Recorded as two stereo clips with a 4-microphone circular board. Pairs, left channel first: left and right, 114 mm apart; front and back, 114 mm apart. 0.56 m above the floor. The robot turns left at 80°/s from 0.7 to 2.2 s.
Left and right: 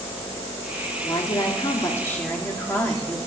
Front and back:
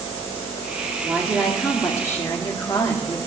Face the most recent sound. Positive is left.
turn(degrees=30)